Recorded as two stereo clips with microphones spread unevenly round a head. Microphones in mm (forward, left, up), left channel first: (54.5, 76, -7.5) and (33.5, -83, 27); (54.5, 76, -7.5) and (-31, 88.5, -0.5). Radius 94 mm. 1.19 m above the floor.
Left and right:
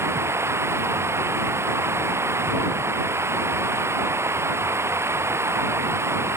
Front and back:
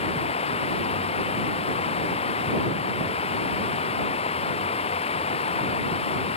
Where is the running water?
25° right.